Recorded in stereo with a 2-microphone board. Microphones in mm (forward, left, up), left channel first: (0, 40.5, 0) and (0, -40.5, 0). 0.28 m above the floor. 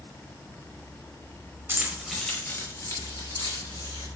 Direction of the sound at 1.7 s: 30° right (ahead or behind).